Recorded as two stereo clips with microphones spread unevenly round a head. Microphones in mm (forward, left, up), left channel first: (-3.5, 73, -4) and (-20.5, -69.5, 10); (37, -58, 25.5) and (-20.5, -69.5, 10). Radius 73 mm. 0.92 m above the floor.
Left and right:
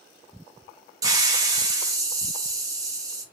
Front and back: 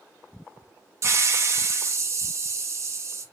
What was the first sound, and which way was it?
A hiss, 165° right.